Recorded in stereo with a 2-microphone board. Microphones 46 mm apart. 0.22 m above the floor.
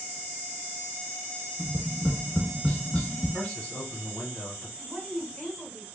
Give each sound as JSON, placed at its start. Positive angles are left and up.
{"t": 1.6, "sound": "tapping", "side_deg": 30, "distance_m": 0.8}
{"t": 3.3, "sound": "a man speaking", "side_deg": 20, "distance_m": 1.6}
{"t": 4.8, "sound": "a woman speaking", "side_deg": 20, "distance_m": 2.0}